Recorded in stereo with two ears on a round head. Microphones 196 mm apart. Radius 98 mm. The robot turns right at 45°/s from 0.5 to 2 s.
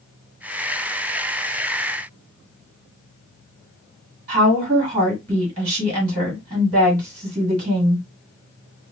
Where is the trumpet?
No trumpet in this recording.